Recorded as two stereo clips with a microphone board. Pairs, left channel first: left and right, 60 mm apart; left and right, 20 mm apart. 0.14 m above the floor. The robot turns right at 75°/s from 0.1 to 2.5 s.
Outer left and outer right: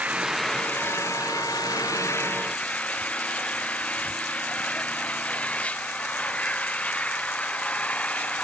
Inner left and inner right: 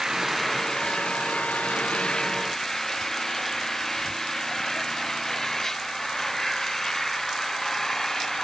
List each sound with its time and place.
0.0 s an engine running: 20° right; by 8.4 s 160° left